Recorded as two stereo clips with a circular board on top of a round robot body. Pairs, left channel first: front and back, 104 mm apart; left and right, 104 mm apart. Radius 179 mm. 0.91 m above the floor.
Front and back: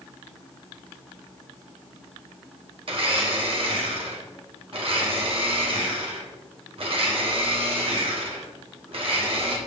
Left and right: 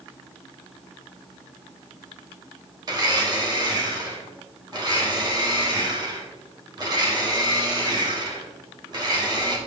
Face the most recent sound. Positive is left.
turn(degrees=-140)